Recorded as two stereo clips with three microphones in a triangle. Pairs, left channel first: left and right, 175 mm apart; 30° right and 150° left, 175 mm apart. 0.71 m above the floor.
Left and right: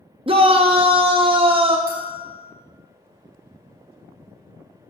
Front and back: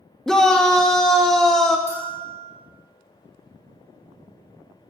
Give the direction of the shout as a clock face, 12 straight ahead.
4 o'clock.